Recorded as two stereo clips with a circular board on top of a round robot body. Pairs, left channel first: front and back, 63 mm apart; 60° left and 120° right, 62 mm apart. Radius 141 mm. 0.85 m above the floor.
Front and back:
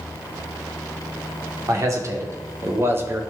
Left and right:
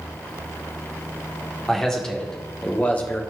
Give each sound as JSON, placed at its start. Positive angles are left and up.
{"t": 1.7, "sound": "a man speaking", "azimuth_deg": 145, "distance_m": 2.5}